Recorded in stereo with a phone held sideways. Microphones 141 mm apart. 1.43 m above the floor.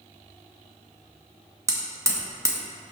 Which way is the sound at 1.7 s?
20° right (ahead or behind).